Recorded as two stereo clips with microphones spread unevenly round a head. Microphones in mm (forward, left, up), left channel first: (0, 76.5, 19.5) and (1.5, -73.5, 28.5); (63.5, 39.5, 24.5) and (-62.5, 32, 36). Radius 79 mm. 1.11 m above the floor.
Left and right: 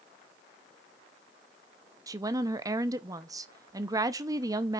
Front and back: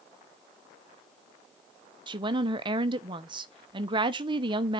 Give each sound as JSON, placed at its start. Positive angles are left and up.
{"t": 2.1, "sound": "a woman speaking", "azimuth_deg": -145, "distance_m": 0.7}